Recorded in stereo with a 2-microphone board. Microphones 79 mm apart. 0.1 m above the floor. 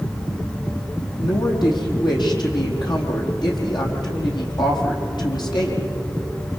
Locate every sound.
1.2 s a woman speaking: 70° left (ahead or behind), 4.5 m